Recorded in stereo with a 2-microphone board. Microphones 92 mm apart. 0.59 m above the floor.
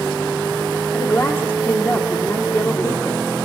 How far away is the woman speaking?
About 1.6 m.